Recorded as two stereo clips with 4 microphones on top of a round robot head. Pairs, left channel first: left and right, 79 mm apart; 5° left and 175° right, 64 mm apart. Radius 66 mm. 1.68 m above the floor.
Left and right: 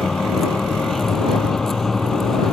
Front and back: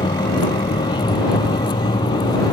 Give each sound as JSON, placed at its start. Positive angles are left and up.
{"t": 0.0, "sound": "a vehicle", "azimuth_deg": 5}